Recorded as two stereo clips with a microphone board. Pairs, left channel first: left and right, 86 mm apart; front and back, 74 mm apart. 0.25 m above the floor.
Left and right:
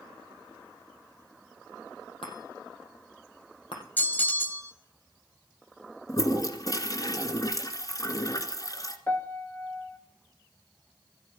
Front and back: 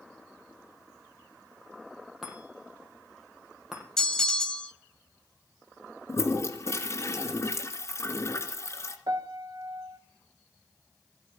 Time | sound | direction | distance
2.2 | a chime | 95° left | 5 m
4.0 | a bell | 70° left | 1.1 m
6.1 | a toilet flushing | 45° left | 2 m
9.1 | a piano | 155° left | 1.1 m